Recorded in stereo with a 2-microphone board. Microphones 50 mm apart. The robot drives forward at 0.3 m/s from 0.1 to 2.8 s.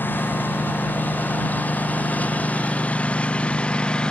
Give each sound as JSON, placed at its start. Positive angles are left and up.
{"t": 0.0, "sound": "a lawn mower", "side_deg": 40}